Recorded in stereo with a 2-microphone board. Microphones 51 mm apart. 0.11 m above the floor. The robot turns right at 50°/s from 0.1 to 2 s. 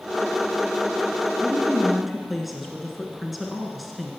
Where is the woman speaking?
15° right (ahead or behind), 1.1 m; by 4.1 s centre (ahead or behind), 1.1 m.